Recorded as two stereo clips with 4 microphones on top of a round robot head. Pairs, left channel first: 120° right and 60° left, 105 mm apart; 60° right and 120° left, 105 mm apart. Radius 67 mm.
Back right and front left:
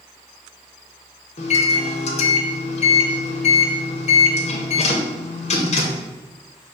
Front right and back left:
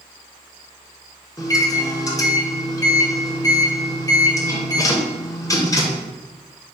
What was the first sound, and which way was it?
A microwave, 115° right.